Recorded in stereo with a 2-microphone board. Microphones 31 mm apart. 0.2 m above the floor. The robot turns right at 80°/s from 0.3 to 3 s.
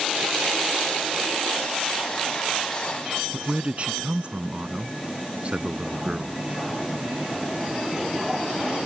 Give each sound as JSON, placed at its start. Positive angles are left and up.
{"t": 3.3, "sound": "a man speaking", "side_deg": -40}